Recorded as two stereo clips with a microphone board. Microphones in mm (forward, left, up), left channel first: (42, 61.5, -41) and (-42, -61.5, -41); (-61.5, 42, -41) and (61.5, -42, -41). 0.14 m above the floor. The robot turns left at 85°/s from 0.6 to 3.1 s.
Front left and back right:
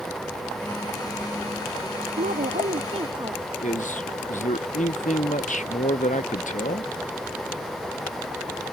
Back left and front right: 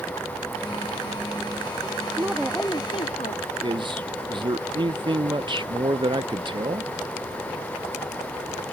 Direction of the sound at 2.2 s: 105° right.